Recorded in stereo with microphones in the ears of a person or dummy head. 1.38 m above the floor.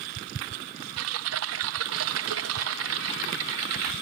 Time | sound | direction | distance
1.0 | typing on a keyboard | 65° right (ahead or behind) | ?